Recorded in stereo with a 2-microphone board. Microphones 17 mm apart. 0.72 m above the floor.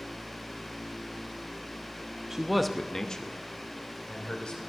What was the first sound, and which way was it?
A man speaking, 30° right (ahead or behind).